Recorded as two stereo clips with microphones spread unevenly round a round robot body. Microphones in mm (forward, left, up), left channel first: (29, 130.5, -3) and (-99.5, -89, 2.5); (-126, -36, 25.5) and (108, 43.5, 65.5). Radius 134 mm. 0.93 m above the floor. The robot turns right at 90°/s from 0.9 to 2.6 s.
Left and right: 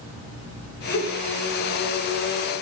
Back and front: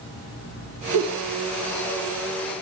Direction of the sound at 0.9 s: 20° left.